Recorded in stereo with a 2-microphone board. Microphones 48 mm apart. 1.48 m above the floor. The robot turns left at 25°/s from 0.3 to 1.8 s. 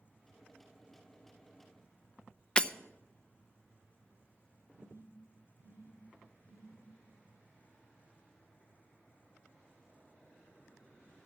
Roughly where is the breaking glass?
Left.